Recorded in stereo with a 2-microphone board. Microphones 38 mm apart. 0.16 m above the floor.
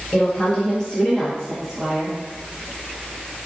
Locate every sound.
0.1 s a woman speaking: 35° left (ahead or behind), 1.5 m; by 2.2 s 10° right (ahead or behind), 1.4 m